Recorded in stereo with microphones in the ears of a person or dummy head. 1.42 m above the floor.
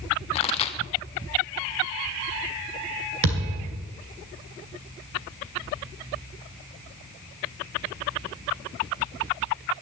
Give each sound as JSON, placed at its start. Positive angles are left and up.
{"t": 0.3, "sound": "a pop", "side_deg": 35, "distance_m": 1.2}
{"t": 3.2, "sound": "a thud", "side_deg": -65, "distance_m": 2.5}